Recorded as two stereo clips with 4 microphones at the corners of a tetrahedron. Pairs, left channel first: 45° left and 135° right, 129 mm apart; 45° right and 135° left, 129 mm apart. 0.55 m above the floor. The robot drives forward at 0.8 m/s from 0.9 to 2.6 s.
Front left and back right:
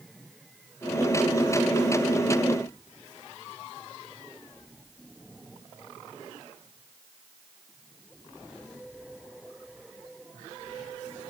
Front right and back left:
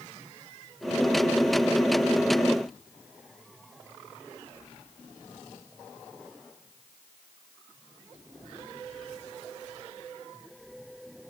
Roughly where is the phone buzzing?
I don't hear a phone buzzing.